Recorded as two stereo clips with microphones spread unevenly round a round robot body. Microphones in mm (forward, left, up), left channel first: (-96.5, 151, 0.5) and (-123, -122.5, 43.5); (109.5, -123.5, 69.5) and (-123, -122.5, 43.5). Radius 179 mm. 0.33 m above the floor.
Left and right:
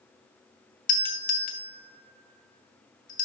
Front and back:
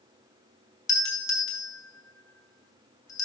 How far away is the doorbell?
About 1.5 m.